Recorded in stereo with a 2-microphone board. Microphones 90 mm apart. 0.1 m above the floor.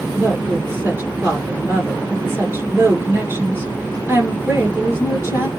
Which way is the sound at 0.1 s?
25° right (ahead or behind).